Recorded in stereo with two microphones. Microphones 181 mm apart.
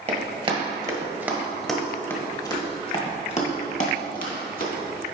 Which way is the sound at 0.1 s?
40° right (ahead or behind).